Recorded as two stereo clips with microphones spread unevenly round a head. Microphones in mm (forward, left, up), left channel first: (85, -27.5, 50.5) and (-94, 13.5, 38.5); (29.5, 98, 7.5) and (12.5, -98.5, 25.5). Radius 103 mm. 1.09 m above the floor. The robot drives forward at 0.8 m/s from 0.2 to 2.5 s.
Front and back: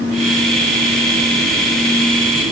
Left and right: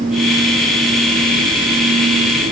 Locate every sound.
Only background noise.